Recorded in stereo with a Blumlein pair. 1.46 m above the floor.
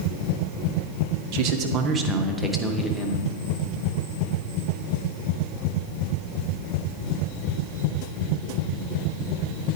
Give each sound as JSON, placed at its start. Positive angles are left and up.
{"t": 1.3, "sound": "a man speaking", "azimuth_deg": -45, "distance_m": 0.9}